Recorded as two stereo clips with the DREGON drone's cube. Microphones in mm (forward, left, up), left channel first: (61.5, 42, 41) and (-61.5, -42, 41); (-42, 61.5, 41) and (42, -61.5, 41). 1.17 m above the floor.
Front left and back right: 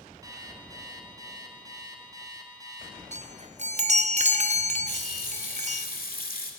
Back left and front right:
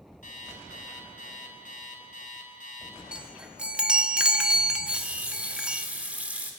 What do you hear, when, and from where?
0.2 s an alarm clock: 150° left, 3.5 m
3.1 s a chime: 140° right, 0.8 m
4.9 s a running tap: 25° left, 2 m